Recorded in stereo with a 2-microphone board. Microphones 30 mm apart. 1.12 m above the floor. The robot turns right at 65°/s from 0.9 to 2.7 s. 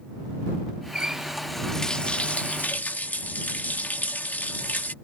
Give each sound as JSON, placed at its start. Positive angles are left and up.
{"t": 0.9, "sound": "a running tap", "azimuth_deg": -35}